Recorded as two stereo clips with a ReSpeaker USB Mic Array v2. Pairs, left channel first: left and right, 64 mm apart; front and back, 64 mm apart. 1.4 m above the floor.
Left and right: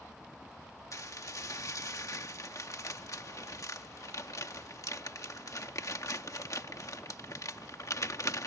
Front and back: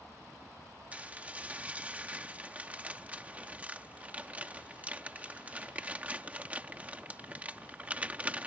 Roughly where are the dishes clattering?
Behind left.